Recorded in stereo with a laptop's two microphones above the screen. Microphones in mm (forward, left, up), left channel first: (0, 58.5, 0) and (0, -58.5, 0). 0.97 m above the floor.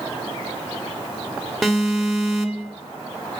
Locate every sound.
1.6 s an alarm: centre (ahead or behind), 1.5 m